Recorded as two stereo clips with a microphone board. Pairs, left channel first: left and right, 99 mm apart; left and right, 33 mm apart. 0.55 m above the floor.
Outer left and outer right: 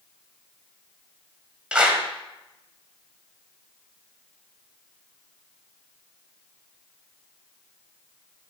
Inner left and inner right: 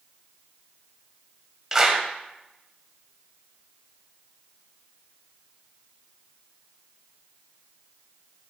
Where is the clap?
10° right (ahead or behind), 2 m.